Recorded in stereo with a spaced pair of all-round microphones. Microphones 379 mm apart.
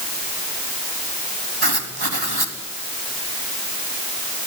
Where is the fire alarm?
No fire alarm in this recording.